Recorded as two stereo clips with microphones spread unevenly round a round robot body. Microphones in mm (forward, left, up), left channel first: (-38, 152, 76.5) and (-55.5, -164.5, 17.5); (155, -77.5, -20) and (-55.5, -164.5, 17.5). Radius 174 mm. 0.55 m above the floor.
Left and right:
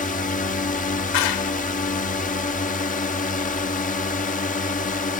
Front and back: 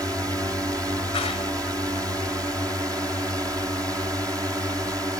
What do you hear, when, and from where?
0.0 s a drone: 130° left
1.1 s a clap: 95° left